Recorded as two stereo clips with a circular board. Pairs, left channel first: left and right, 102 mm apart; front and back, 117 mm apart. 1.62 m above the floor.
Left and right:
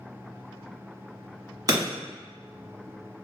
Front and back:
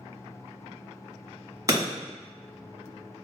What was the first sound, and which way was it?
Breaking glass, 130° right.